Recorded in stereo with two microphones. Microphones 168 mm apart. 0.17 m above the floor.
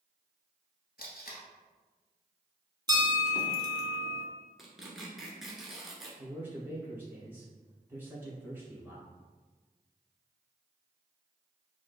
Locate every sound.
1.0 s tape being pulled: 70° left (ahead or behind), 1.0 m
2.9 s a bell: 30° right (ahead or behind), 0.6 m
4.6 s tearing paper: centre (ahead or behind), 1.0 m
6.2 s a man speaking: 15° right (ahead or behind), 1.7 m